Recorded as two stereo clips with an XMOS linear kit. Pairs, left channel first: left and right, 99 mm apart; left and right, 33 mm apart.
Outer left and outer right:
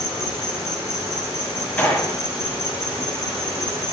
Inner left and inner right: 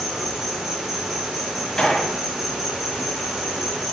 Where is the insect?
20° right (ahead or behind), 3 m.